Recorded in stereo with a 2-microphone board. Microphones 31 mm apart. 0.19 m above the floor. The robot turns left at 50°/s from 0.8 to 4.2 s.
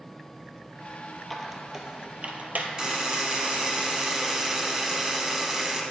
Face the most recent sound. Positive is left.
turn(degrees=-20)  # may be behind; listen again after turning